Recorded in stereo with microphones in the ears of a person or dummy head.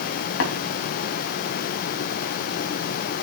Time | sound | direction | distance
0.4 | tapping | 80° left | 3 m